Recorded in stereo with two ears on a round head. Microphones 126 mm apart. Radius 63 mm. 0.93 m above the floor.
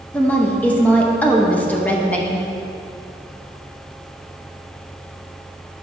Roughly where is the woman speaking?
Centre.